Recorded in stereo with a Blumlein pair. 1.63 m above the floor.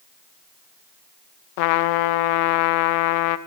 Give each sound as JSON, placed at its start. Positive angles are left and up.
{"t": 1.6, "sound": "a trumpet", "azimuth_deg": 45, "distance_m": 1.2}